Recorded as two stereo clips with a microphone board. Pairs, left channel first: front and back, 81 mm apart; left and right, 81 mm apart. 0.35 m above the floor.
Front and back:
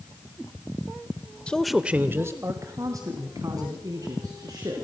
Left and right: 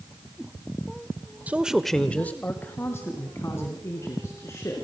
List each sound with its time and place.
1.5 s a man speaking: 55° right, 1.1 m; by 4.8 s 140° left, 5 m